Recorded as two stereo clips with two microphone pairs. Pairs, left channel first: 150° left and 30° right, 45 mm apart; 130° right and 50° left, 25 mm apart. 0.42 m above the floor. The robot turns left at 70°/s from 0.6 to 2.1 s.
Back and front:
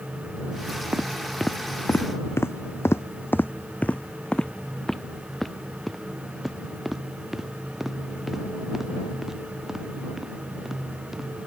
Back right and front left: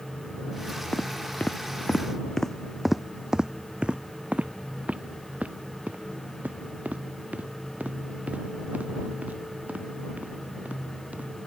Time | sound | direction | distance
0.9 | footsteps | 85° right | ?